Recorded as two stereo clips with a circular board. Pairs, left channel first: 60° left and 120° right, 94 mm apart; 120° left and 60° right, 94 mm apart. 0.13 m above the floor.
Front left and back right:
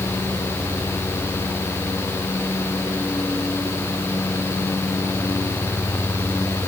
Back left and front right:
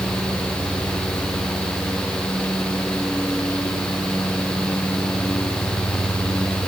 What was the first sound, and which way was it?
Only background noise.